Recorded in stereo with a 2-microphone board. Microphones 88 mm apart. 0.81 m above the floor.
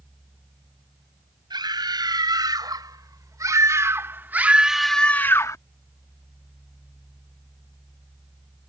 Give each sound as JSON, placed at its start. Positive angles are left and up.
{"t": 1.5, "sound": "a scream", "side_deg": -55}